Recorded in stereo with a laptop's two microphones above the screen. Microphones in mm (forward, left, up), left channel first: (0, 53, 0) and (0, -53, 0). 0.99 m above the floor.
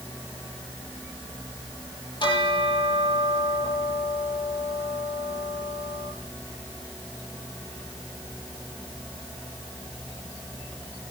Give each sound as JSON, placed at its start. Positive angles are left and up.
{"t": 2.2, "sound": "a bell", "side_deg": 45, "distance_m": 8.5}